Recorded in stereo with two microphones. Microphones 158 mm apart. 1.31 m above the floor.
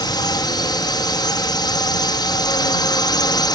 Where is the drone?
25° left (ahead or behind).